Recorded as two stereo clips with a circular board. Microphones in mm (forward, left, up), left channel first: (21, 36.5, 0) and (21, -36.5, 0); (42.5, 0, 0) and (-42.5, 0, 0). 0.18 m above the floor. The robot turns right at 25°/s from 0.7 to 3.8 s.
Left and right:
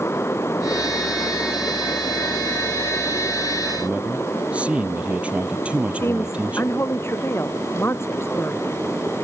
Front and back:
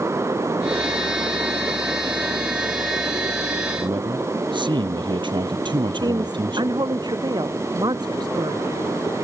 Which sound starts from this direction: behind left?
A woman speaking, at 5.9 s.